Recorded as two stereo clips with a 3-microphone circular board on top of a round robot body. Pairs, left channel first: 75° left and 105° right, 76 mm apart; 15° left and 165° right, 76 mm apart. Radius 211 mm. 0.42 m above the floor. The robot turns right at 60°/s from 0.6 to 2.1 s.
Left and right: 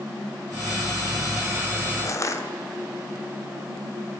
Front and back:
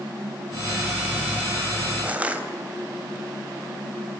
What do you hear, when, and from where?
2.0 s crushing: 120° left, 3.5 m